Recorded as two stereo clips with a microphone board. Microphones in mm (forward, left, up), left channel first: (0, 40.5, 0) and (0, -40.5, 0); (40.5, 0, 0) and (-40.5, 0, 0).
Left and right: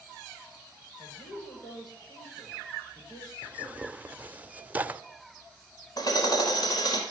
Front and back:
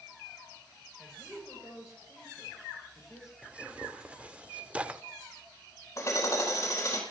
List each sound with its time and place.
1.0 s a woman speaking: 90° left, 9 m
3.4 s tearing paper: 130° right, 0.7 m
6.0 s hammering: 55° left, 4.5 m